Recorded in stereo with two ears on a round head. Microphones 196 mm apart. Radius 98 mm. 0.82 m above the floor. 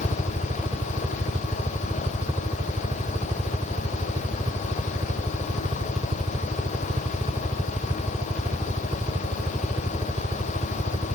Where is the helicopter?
20° right (ahead or behind).